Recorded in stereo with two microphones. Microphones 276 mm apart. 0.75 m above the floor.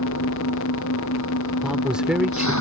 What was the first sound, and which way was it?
An engine running, 80° left.